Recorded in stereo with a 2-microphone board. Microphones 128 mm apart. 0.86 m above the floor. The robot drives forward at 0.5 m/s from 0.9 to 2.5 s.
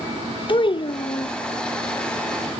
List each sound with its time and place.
0.5 s a child speaking: 40° left (ahead or behind), 0.6 m